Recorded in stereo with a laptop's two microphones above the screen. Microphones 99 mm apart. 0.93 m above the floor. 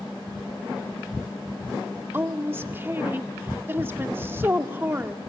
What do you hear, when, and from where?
2.1 s a woman speaking: 25° right (ahead or behind), 1.8 m